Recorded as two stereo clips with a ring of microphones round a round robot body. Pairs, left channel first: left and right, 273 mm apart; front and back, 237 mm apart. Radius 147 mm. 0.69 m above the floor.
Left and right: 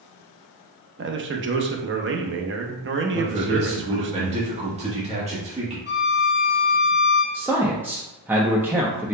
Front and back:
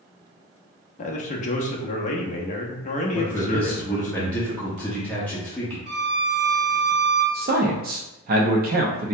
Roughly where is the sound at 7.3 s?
Behind.